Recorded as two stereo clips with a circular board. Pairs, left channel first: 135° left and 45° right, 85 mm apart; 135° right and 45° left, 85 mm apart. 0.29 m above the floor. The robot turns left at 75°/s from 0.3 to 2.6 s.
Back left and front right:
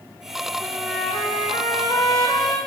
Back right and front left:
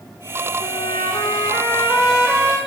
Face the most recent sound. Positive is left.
turn(degrees=90)